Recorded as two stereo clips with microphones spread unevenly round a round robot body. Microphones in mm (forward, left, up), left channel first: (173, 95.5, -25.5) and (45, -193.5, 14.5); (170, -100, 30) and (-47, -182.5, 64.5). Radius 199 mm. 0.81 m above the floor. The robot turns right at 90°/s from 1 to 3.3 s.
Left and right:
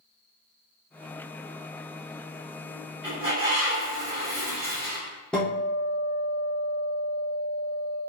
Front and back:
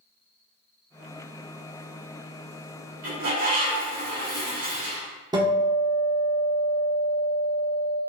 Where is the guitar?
130° left, 0.9 m.